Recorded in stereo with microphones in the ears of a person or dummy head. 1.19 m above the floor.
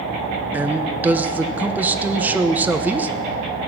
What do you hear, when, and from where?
0.5 s a man speaking: 10° right (ahead or behind), 0.9 m